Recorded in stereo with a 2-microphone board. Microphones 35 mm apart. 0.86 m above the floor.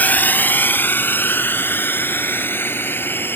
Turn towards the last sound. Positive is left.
turn(degrees=80)